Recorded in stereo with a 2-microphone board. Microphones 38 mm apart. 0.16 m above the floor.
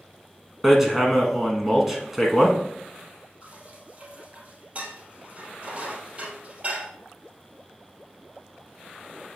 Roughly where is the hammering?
Centre.